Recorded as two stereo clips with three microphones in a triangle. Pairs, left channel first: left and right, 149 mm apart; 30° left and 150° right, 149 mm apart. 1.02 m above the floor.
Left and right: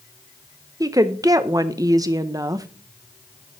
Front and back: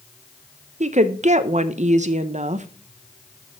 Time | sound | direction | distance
0.8 | a woman speaking | 150° right | 0.5 m